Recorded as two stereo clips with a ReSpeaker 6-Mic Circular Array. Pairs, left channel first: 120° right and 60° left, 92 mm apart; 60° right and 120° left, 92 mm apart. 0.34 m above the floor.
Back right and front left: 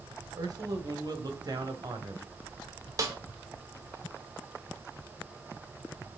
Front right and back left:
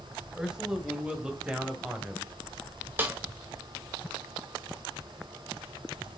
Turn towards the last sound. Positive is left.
turn(degrees=65)